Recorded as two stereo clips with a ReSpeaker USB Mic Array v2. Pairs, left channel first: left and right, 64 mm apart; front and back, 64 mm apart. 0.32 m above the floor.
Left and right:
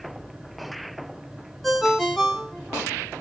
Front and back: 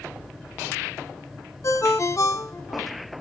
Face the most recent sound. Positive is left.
turn(degrees=5)